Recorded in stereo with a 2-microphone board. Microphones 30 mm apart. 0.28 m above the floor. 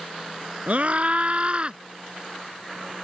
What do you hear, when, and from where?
0.7 s a scream: 50° right (ahead or behind); by 1.8 s 35° right (ahead or behind)